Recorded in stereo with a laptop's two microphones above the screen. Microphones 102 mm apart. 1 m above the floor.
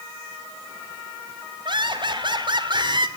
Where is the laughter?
50° right (ahead or behind), 4.5 m.